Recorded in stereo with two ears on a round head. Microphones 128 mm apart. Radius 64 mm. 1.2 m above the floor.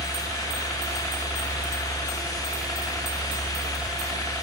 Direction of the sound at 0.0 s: 5° left (ahead or behind).